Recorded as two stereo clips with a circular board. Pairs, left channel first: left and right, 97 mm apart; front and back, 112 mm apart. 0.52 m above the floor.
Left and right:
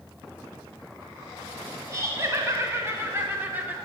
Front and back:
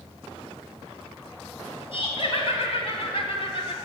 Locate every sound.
1.9 s laughter: 30° right, 3.5 m; by 3.8 s 20° right, 1.7 m